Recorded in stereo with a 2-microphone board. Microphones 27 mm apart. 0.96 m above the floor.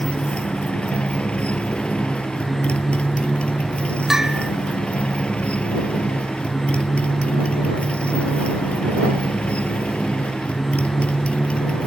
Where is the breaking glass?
I don't hear breaking glass.